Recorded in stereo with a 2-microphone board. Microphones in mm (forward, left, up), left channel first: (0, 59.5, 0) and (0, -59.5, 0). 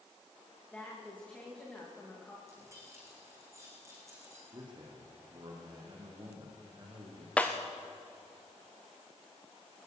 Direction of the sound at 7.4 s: 10° left (ahead or behind).